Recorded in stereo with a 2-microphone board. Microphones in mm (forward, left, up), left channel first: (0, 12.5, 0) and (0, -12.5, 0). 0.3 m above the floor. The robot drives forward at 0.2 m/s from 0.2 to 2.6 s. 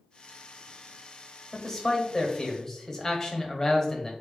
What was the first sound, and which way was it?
A man speaking, 20° left (ahead or behind).